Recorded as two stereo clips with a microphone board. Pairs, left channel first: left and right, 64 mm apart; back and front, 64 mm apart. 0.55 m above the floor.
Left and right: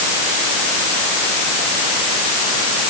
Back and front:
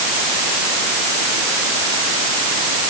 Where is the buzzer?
I don't hear a buzzer.